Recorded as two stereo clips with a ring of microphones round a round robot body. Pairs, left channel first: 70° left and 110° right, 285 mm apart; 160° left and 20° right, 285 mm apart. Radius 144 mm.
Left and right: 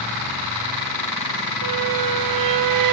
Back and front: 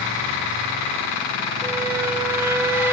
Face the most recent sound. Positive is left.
turn(degrees=-105)